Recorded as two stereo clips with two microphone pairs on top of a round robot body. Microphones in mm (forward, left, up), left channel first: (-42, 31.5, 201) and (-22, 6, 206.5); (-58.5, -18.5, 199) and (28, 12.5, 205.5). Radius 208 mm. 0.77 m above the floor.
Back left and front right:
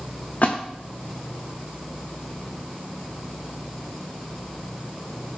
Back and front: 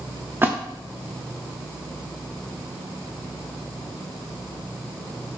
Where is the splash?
85° left, 1.4 m.